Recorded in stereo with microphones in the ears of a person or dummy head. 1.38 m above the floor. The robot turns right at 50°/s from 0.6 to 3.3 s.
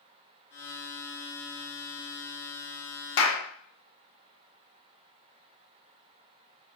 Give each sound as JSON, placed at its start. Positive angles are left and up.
{"t": 3.2, "sound": "a clap", "side_deg": 80, "distance_m": 1.0}